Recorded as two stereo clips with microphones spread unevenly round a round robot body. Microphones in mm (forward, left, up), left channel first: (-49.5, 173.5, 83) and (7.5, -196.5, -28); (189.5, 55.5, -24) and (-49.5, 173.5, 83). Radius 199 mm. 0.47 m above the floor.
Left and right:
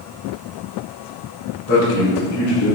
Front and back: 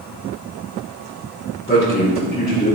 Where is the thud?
No thud in this recording.